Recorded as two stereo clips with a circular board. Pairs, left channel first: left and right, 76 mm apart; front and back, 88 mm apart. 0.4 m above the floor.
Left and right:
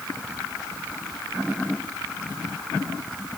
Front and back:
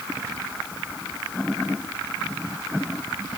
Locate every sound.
Only background noise.